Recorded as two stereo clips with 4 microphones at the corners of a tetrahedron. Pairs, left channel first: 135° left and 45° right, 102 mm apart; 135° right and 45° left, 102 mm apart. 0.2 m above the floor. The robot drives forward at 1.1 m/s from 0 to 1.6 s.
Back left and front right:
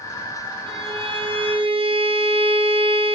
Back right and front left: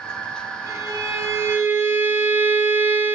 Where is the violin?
15° right, 3 m; by 3.1 s 20° right, 1.9 m.